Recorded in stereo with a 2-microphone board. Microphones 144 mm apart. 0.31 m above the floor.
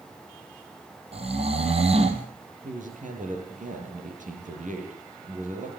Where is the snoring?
45° right (ahead or behind), 3 m.